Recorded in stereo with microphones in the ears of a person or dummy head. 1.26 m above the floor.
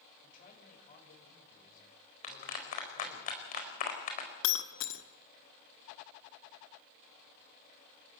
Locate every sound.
0.2 s a man speaking: 50° left (ahead or behind), 7 m
2.2 s a clap: 50° left (ahead or behind), 4 m
4.4 s breaking glass: 70° left (ahead or behind), 1.5 m